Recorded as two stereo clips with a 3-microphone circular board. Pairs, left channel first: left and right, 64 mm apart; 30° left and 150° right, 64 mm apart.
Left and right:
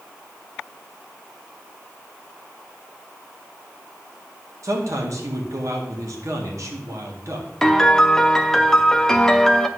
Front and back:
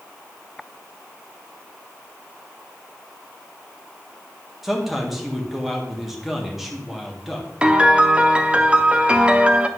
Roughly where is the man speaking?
Ahead right.